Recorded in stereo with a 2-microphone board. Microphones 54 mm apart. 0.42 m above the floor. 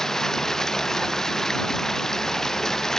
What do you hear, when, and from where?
0.0 s running water: 10° left (ahead or behind)